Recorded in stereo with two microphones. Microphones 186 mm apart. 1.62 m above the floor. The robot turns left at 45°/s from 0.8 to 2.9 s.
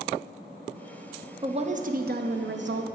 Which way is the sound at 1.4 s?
25° right.